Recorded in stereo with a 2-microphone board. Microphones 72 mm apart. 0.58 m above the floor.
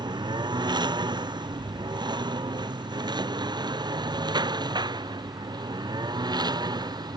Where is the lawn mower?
85° right; by 7.2 s 70° right (ahead or behind).